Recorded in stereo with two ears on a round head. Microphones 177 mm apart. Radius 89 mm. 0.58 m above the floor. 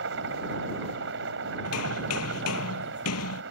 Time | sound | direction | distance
0.0 | a helicopter | 65° right (ahead or behind) | ?
1.6 | hammering | 85° left | ?